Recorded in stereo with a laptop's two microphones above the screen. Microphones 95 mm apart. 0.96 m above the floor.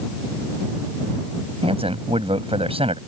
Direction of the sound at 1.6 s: 85° right.